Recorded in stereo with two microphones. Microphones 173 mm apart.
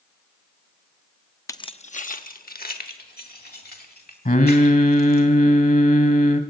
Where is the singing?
65° left (ahead or behind), 1.5 m.